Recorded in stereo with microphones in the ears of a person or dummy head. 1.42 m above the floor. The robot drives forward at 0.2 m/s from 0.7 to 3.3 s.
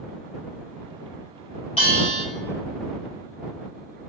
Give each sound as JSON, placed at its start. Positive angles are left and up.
{"t": 1.8, "sound": "a bell", "side_deg": 35, "distance_m": 1.7}